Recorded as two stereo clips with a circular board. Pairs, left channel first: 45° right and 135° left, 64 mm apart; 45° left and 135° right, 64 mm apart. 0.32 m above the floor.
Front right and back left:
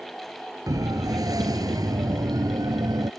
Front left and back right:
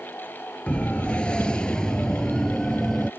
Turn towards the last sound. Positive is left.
turn(degrees=125)